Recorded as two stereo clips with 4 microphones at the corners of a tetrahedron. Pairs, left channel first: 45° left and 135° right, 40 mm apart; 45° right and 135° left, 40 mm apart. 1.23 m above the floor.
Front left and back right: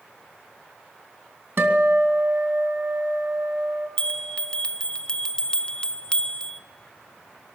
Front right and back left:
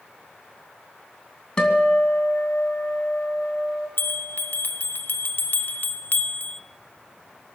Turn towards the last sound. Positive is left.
turn(degrees=-20)